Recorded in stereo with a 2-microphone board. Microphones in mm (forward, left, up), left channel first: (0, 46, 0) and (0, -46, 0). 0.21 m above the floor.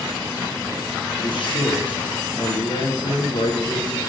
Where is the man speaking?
60° left (ahead or behind), 3.5 m.